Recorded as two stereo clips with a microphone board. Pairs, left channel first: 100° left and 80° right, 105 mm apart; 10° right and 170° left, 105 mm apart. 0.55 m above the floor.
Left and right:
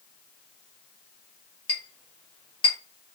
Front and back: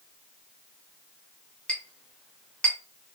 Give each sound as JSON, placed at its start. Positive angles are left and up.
{"t": 1.7, "sound": "a clink", "azimuth_deg": 70, "distance_m": 0.9}